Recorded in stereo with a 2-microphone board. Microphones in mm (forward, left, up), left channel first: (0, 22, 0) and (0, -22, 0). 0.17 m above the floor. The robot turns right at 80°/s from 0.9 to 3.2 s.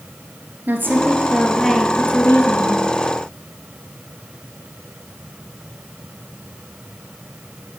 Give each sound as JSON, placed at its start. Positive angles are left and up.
{"t": 0.7, "sound": "a woman speaking", "azimuth_deg": -55, "distance_m": 3.0}